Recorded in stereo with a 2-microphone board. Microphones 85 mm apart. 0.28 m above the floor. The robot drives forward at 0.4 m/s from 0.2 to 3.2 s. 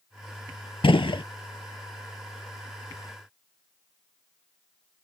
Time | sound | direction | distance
0.8 | a gunshot | 75° left (ahead or behind) | 0.6 m